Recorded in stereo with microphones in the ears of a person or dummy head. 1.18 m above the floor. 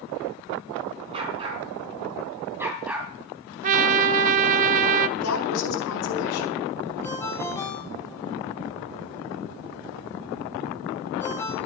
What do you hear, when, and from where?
1.1 s a dog barking: 30° right (ahead or behind), 4 m; by 3.1 s 5° right (ahead or behind), 2.5 m
3.6 s a trumpet: 40° right (ahead or behind), 0.6 m
5.2 s a woman speaking: 85° left, 4.5 m
7.0 s a ringtone: 15° left (ahead or behind), 2 m